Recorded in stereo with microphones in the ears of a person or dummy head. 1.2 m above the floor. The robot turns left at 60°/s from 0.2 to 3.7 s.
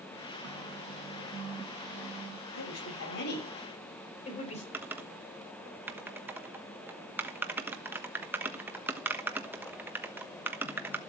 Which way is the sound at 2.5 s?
105° left.